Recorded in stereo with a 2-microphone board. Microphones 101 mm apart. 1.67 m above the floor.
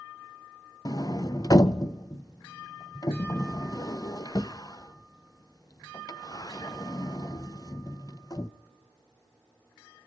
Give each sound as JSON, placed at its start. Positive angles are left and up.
{"t": 0.8, "sound": "a sliding door", "side_deg": 40, "distance_m": 0.5}